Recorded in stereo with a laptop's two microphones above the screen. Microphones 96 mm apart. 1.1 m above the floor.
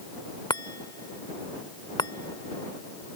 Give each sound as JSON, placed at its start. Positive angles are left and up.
{"t": 0.5, "sound": "a chime", "side_deg": 50}